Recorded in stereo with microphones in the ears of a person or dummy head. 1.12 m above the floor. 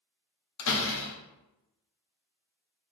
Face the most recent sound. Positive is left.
turn(degrees=65)  # may be behind; listen again after turning